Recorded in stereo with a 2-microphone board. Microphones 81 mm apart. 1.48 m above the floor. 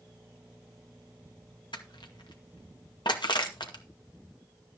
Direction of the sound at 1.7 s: 75° left (ahead or behind).